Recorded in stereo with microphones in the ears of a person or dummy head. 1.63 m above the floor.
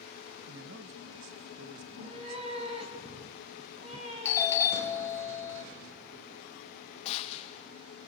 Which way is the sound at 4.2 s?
15° left (ahead or behind).